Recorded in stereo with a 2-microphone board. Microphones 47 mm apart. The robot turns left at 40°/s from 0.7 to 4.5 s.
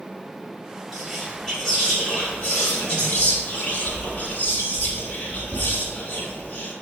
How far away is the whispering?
About 1.2 m.